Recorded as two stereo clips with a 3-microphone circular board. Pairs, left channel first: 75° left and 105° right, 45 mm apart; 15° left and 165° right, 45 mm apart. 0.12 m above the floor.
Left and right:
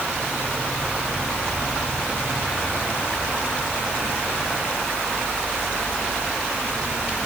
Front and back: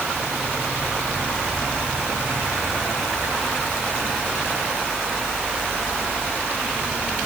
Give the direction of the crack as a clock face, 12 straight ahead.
No crack in this recording.